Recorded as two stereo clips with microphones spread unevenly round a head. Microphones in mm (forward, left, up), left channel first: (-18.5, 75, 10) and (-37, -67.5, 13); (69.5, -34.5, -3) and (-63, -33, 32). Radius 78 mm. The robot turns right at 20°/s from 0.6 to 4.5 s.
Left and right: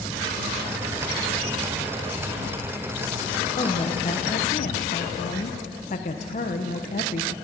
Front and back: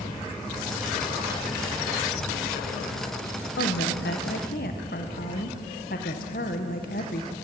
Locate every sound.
3.6 s a woman speaking: 20° left, 1.0 m; by 7.3 s 40° left, 1.0 m